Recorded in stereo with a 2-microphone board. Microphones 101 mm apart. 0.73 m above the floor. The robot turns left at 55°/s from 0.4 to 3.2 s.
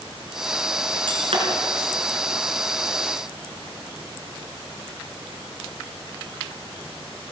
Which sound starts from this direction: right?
Breaking glass, at 1.1 s.